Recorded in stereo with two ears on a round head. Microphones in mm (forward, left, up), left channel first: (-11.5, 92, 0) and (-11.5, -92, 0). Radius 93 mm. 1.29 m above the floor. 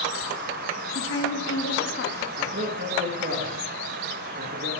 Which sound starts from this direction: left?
A woman speaking, at 0.9 s.